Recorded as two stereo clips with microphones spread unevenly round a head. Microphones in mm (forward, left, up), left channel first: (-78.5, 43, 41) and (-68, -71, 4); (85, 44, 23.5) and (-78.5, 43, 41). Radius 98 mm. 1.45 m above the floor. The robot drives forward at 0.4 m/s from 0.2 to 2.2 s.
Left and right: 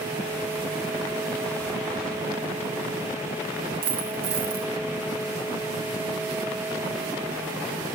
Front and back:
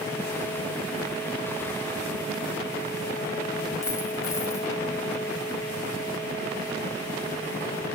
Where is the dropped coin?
70° right, 0.8 m.